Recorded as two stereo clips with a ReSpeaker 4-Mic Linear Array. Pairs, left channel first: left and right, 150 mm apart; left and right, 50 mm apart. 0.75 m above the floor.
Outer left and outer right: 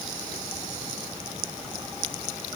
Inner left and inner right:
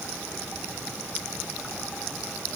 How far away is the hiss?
I don't hear a hiss.